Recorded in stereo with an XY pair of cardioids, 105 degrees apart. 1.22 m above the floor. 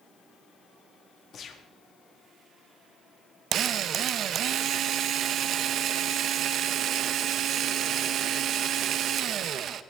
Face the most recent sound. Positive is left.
turn(degrees=-65)